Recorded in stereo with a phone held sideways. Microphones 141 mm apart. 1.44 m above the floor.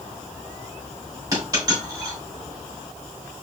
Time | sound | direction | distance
1.3 | a dropped coin | 25° right (ahead or behind) | 3 m